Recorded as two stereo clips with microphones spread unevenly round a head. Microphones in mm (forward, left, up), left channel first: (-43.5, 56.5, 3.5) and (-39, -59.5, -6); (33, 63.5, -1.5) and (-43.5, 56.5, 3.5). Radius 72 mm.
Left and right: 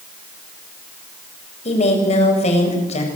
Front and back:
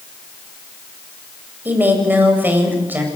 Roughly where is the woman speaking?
Behind left.